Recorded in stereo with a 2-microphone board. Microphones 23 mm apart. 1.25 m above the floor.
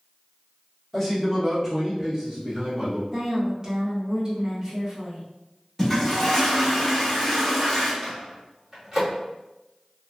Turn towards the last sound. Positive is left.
turn(degrees=-10)  # may be behind; listen again after turning